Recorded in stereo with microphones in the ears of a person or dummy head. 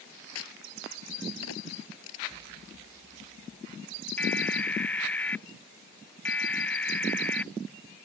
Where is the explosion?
30° right (ahead or behind).